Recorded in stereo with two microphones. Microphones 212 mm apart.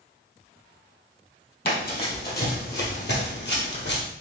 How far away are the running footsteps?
About 2 m.